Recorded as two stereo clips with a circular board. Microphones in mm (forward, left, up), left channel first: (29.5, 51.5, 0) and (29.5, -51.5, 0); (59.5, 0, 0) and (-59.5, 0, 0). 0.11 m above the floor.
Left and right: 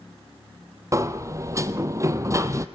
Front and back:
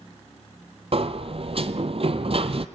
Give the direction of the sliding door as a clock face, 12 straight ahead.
5 o'clock.